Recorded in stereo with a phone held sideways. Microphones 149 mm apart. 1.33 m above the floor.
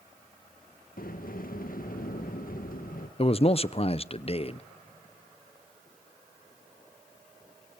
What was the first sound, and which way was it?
A sliding door, 70° left (ahead or behind).